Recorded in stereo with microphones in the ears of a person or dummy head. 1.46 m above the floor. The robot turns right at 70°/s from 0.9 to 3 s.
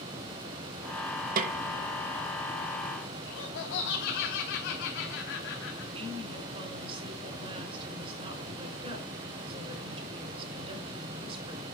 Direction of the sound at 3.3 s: 60° left (ahead or behind).